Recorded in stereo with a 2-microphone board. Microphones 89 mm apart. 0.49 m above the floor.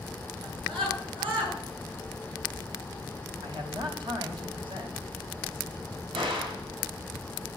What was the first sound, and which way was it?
A scream, 65° right (ahead or behind).